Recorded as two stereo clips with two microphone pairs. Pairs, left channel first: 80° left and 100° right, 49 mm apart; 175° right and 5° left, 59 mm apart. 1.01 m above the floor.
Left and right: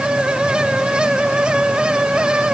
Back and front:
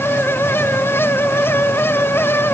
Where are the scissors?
I don't hear scissors.